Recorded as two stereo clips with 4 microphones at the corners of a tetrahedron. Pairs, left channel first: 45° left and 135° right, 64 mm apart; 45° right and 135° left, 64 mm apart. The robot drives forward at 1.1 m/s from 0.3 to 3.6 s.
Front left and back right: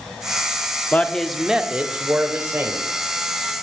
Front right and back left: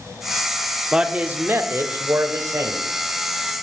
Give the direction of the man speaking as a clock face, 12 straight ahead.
10 o'clock.